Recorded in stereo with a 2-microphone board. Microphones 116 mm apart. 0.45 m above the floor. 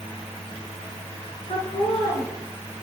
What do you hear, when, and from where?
1.5 s laughter: 75° left (ahead or behind), 5.5 m; by 2.8 s 80° left, 6.5 m